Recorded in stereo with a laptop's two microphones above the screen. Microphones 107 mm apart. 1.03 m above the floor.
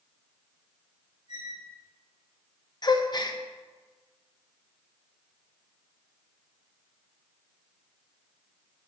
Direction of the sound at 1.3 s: 80° left.